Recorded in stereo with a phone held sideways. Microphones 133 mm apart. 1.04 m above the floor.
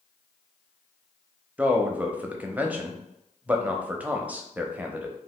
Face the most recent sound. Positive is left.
turn(degrees=-10)  # may be behind; listen again after turning